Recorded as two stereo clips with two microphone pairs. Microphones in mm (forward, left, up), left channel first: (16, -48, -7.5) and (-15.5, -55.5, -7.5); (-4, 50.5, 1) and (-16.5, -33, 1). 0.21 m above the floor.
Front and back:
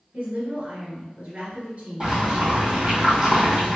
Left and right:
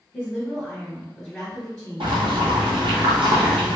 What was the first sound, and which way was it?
A woman speaking, 170° left.